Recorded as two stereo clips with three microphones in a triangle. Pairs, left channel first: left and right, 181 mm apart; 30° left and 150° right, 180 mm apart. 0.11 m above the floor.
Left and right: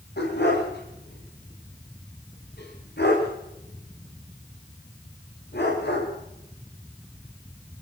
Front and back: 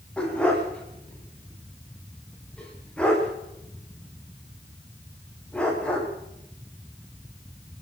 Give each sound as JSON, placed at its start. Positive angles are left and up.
{"t": 0.2, "sound": "a dog barking", "azimuth_deg": 115, "distance_m": 9.0}